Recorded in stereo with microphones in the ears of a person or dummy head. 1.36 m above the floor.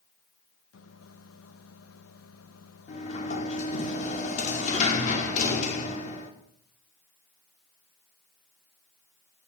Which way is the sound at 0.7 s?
80° left.